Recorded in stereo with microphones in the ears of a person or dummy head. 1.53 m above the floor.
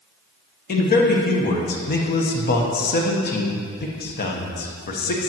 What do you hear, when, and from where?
0.7 s a man speaking: 45° left (ahead or behind), 1.2 m